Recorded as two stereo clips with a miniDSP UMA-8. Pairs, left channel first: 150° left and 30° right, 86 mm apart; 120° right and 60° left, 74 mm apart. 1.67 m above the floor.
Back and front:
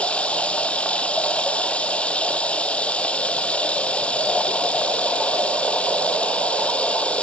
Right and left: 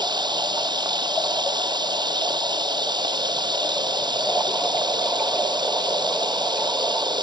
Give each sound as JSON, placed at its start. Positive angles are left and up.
{"t": 0.0, "sound": "running water", "azimuth_deg": 75}